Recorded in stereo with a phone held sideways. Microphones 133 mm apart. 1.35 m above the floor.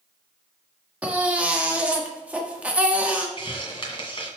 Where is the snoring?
No snoring in this recording.